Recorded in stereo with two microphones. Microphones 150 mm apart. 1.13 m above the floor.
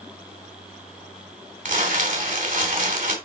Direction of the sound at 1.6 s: 60° right (ahead or behind).